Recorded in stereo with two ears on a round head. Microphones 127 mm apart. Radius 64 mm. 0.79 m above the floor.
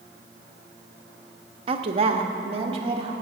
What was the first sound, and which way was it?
A woman speaking, 40° right (ahead or behind).